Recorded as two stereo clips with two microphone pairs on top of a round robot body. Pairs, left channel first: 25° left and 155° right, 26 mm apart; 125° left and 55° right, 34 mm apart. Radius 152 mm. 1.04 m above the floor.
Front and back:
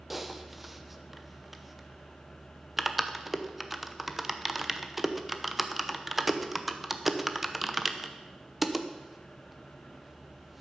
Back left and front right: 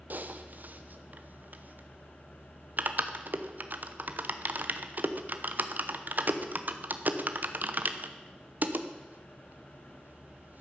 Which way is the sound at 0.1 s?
60° right.